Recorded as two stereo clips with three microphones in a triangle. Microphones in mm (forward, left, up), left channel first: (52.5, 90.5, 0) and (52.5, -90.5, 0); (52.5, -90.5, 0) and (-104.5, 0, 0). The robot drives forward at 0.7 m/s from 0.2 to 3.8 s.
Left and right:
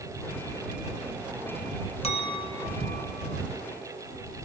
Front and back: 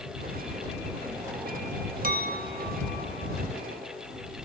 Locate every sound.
2.0 s a clink: 135° left, 0.7 m; by 3.4 s 165° left, 1.4 m